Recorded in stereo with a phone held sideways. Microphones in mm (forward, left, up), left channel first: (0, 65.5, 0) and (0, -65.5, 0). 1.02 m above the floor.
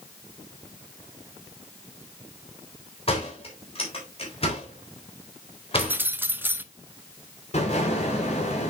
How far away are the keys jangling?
About 0.6 m.